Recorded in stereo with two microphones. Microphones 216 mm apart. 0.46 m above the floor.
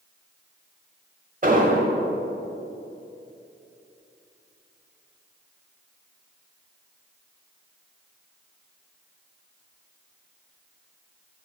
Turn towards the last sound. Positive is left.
turn(degrees=-40)  # may be behind; listen again after turning